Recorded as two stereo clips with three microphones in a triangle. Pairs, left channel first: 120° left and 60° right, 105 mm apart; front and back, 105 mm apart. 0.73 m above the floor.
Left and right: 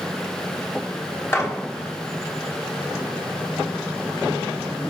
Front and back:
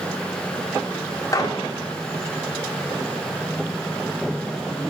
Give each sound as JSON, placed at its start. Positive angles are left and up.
{"t": 1.3, "sound": "a gunshot", "azimuth_deg": 55, "distance_m": 1.2}